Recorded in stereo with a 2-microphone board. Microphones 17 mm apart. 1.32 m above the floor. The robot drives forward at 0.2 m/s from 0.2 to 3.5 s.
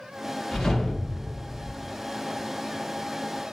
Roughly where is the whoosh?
Left.